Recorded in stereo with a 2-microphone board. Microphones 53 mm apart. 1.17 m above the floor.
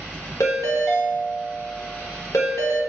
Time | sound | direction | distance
0.4 | a ringtone | 75° left (ahead or behind) | 0.9 m